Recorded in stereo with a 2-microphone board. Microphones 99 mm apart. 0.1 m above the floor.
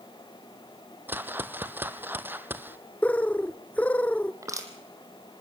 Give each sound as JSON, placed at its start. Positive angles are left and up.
{"t": 1.1, "sound": "a whoosh", "side_deg": -20, "distance_m": 0.8}
{"t": 3.0, "sound": "a bird", "side_deg": 15, "distance_m": 0.5}
{"t": 4.4, "sound": "crushing", "side_deg": -30, "distance_m": 2.5}